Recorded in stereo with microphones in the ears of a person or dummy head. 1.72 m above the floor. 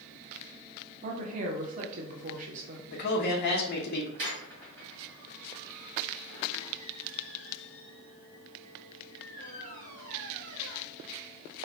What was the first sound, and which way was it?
A woman speaking, 45° right (ahead or behind).